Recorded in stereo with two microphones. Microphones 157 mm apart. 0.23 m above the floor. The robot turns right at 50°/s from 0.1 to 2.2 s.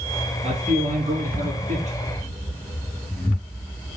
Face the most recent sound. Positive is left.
turn(degrees=-40)